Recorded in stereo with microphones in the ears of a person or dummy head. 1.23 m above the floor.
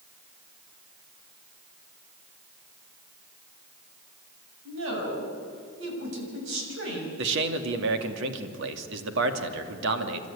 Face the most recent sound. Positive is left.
turn(degrees=-75)  # may be behind; listen again after turning